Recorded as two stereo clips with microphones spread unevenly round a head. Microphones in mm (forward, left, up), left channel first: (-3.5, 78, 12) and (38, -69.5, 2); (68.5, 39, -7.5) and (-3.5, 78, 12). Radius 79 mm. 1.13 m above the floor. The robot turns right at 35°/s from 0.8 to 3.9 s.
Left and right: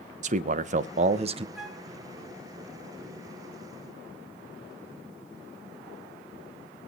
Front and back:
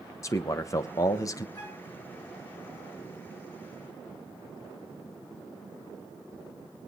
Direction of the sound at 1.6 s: 10° left.